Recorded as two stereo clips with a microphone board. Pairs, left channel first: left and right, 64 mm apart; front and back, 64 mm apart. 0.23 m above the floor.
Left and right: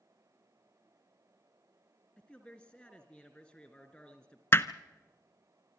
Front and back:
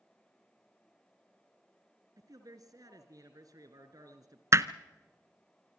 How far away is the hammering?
About 0.6 m.